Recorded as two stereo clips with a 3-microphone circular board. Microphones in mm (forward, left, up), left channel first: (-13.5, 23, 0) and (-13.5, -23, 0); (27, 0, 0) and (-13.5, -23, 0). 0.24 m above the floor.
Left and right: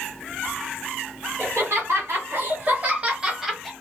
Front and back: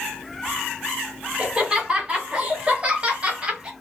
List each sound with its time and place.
1.4 s laughter: 85° right, 2 m; by 3.7 s 175° left, 1.2 m